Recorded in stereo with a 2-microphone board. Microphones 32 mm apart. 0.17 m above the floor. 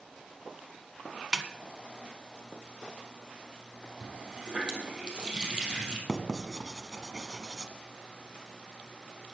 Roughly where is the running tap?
Right.